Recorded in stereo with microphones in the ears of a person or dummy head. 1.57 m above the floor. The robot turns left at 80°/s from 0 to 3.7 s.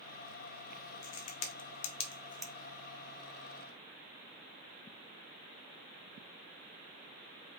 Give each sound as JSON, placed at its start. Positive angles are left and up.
{"t": 1.0, "sound": "a crack", "side_deg": 60, "distance_m": 1.0}